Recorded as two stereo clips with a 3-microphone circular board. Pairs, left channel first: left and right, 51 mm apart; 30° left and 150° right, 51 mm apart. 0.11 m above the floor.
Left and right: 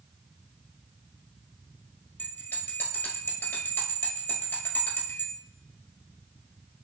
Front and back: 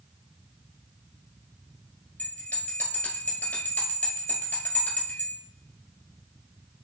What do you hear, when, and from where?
2.2 s a bell: 70° left, 1.5 m